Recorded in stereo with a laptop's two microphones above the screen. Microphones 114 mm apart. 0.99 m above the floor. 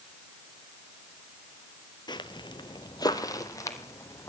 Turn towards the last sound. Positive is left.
turn(degrees=25)  # may be behind; listen again after turning